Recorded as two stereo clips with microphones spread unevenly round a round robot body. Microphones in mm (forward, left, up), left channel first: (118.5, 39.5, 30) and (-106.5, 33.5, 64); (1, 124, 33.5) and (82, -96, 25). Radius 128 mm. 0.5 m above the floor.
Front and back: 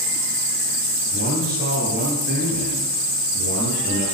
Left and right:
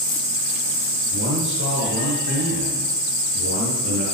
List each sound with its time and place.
1.1 s a man speaking: 120° right, 8.5 m